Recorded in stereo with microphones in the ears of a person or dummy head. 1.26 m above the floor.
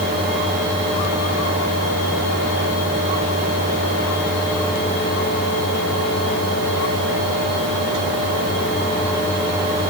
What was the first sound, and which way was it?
Only background noise.